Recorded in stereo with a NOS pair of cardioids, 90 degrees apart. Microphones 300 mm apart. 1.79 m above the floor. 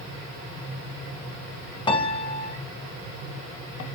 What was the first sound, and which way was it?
A piano, 15° left.